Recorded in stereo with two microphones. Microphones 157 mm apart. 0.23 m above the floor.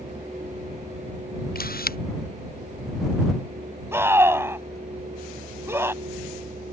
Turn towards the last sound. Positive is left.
turn(degrees=-15)  # may be behind; listen again after turning